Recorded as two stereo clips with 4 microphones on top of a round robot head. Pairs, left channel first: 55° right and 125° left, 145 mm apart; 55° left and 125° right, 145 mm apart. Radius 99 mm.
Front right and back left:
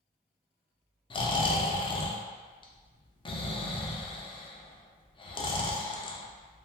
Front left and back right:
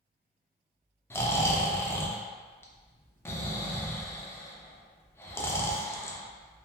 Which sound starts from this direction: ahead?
Snoring, at 1.1 s.